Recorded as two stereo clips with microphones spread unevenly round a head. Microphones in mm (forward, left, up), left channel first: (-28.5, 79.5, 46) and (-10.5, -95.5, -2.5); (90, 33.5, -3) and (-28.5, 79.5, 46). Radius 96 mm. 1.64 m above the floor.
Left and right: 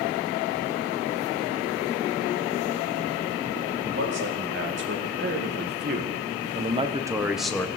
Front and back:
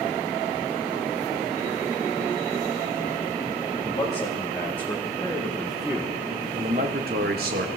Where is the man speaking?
95° right, 3.5 m; by 7.7 s 175° left, 1.3 m.